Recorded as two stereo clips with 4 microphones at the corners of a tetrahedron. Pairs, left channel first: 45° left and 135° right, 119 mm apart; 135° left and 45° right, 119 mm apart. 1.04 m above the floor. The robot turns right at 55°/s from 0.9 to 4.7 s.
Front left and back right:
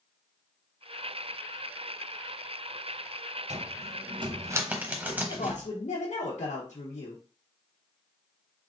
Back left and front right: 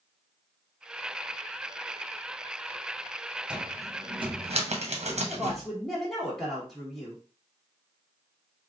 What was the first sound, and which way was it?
A cupboard door, 125° right.